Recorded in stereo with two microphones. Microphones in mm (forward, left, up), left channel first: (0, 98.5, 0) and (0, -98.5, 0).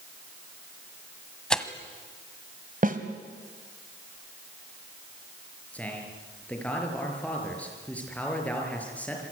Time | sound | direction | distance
1.5 | tearing paper | 5° left (ahead or behind) | 1.5 m
2.8 | a snare drum | 45° right (ahead or behind) | 2.0 m
5.7 | a man speaking | 5° left (ahead or behind) | 6 m